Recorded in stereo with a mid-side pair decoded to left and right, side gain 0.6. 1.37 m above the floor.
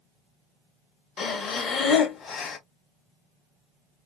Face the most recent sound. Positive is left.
turn(degrees=50)